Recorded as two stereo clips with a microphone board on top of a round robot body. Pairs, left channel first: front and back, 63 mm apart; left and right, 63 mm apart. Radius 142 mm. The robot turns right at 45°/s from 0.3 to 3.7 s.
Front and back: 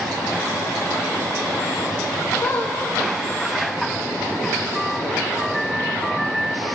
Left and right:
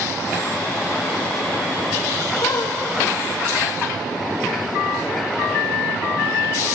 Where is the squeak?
55° left, 1.2 m; by 2.8 s 70° left, 1.2 m.